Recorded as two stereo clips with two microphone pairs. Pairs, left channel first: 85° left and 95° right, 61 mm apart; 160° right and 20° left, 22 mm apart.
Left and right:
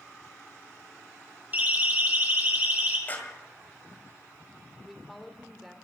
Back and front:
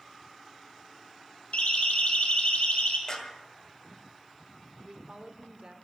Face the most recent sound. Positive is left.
turn(degrees=-5)